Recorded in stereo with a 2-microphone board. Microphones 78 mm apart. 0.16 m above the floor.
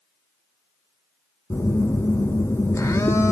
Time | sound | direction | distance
1.5 | a phone buzzing | 35° left (ahead or behind) | 0.8 m